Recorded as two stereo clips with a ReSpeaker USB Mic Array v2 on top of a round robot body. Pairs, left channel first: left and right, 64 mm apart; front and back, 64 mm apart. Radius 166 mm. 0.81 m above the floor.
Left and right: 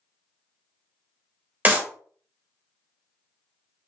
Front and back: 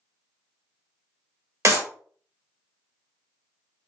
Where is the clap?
145° right, 1.2 m.